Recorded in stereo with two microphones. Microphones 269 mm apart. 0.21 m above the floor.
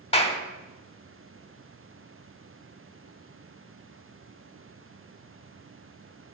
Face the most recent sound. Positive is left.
turn(degrees=25)  # may be behind; listen again after turning